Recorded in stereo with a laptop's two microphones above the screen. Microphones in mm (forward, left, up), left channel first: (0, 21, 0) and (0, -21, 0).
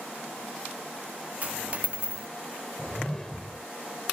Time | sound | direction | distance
1.4 | a dropped coin | 35° right (ahead or behind) | ?
2.8 | a whoosh | 10° left (ahead or behind) | ?